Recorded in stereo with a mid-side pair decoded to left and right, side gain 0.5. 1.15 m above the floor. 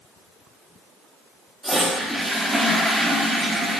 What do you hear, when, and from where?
1.6 s a toilet flushing: 5° right, 0.5 m